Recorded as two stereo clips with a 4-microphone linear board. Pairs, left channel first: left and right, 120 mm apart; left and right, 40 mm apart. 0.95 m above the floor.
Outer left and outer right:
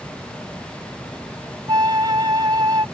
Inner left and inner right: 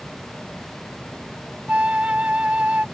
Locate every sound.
1.7 s a flute: 35° right (ahead or behind)